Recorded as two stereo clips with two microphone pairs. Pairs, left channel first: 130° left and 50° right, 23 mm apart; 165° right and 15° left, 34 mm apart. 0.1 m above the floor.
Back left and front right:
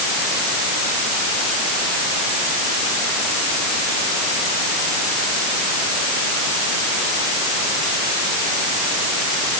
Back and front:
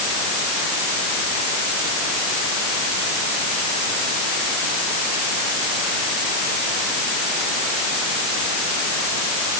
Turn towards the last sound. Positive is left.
No sound to turn to.